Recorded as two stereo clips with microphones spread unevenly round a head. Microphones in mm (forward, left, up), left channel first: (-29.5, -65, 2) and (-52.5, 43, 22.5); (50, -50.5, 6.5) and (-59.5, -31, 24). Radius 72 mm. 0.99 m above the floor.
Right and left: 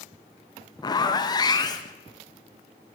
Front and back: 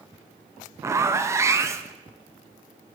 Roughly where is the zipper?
Behind right.